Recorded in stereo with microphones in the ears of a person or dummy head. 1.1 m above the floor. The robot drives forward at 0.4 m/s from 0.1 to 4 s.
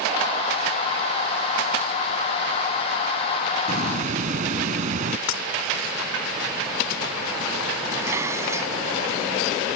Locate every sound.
3.7 s a hiss: 45° right (ahead or behind)
5.3 s breaking glass: 85° left
7.9 s dishes clattering: 15° right (ahead or behind)